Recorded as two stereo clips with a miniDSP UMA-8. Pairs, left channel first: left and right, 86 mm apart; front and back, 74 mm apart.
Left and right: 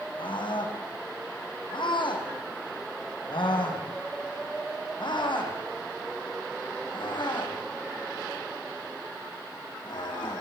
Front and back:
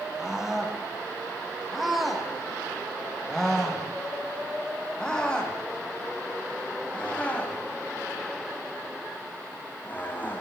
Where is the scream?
95° left, 7.5 m; by 10.4 s 60° left, 11 m.